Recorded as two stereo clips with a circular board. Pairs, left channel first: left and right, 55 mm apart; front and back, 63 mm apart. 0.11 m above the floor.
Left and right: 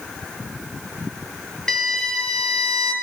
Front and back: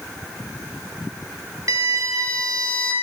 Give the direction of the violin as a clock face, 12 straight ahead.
6 o'clock.